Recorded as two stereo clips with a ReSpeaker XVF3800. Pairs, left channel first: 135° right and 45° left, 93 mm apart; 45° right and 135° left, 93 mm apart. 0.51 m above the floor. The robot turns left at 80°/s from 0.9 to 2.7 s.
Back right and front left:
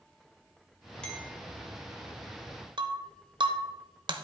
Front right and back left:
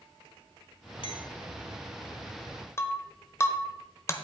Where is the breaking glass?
15° left, 0.9 m.